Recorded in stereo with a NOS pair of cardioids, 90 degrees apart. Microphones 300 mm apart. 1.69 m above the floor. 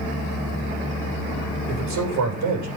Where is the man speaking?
70° right, 8.5 m.